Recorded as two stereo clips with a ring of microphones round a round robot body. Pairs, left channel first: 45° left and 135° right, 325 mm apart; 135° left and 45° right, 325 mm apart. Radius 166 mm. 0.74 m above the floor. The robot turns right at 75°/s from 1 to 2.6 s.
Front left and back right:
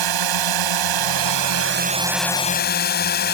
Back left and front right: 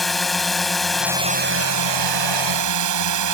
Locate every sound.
0.0 s a drone: 135° right; by 3.3 s 15° right